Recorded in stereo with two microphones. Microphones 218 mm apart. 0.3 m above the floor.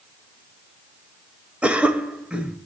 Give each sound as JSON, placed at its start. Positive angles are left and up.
{"t": 1.6, "sound": "a cough", "side_deg": -5, "distance_m": 0.9}